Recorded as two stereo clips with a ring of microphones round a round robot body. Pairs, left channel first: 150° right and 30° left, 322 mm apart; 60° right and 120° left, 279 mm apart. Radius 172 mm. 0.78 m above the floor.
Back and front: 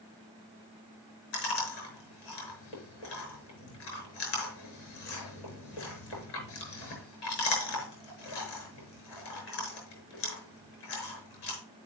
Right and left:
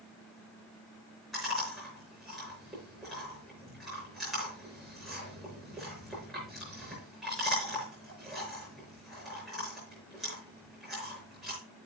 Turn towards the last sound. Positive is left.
turn(degrees=-150)